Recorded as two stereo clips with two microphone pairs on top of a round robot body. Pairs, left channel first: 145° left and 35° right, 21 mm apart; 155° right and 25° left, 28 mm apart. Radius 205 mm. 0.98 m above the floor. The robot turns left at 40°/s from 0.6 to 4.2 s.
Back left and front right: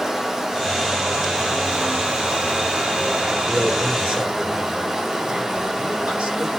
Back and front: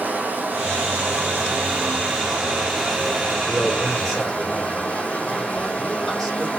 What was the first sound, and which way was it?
Running water, 30° left.